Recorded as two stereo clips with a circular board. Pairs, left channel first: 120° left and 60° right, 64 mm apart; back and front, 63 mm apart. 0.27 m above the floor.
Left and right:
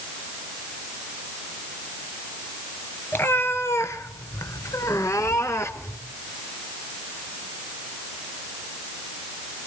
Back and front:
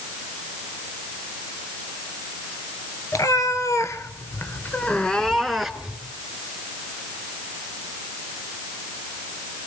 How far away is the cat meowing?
About 2.5 m.